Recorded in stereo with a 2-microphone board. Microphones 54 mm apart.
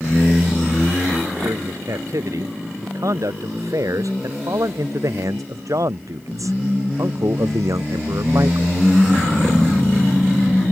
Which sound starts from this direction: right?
A man speaking, at 1.4 s.